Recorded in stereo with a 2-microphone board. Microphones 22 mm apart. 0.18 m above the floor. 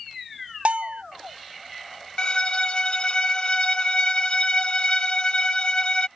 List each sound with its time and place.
0.7 s a bell: 65° right (ahead or behind)
2.2 s a violin: 40° left (ahead or behind)